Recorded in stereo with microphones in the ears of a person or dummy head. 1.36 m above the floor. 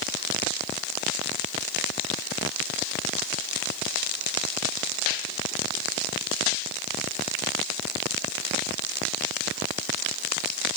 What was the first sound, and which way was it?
Only background noise.